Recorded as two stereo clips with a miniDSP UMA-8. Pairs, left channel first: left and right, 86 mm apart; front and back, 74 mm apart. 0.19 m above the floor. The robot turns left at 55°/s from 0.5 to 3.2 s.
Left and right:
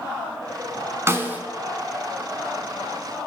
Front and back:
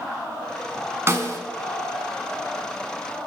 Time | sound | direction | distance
1.1 | a snare drum | 135° right | 0.6 m